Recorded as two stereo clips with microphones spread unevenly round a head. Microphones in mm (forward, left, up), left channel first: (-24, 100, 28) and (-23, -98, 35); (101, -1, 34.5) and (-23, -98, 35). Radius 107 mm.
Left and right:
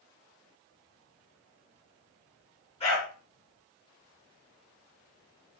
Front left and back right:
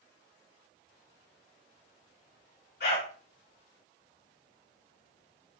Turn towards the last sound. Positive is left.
turn(degrees=25)